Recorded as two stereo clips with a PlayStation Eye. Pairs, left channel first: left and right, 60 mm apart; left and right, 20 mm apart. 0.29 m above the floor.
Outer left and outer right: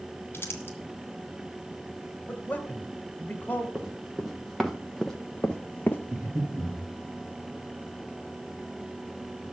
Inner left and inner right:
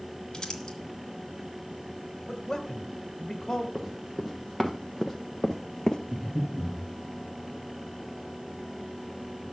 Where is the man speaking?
25° left (ahead or behind), 1.3 m.